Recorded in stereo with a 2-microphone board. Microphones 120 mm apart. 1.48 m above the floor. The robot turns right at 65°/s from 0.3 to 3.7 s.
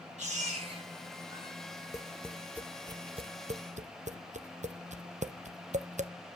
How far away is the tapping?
About 0.6 m.